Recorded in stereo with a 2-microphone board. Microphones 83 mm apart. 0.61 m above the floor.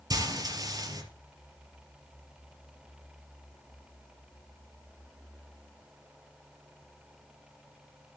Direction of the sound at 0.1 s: 45° right (ahead or behind).